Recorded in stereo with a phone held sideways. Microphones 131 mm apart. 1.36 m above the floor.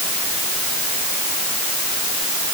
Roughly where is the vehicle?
No vehicle in this recording.